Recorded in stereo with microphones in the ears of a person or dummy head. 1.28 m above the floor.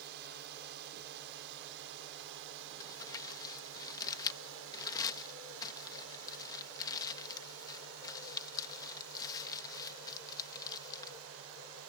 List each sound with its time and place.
0.0 s a drone: 55° right (ahead or behind); by 11.9 s 75° right (ahead or behind)
2.8 s crumpling: 20° left (ahead or behind)